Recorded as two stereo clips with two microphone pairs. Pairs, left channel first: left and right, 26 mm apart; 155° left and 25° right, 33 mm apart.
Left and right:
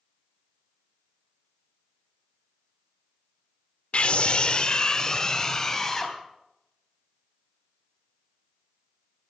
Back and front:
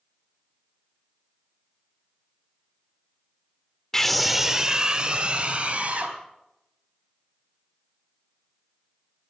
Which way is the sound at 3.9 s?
80° left.